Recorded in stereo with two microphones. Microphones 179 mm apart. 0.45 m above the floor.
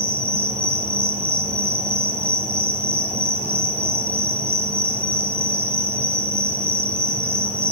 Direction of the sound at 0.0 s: 35° right (ahead or behind).